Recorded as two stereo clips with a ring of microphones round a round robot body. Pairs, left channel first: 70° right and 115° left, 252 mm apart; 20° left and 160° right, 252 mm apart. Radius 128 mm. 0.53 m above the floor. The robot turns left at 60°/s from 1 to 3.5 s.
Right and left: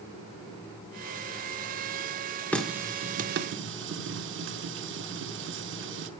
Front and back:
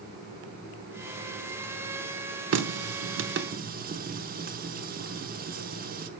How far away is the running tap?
About 0.7 m.